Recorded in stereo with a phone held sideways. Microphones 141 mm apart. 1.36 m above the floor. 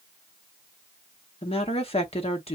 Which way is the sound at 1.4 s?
45° left (ahead or behind).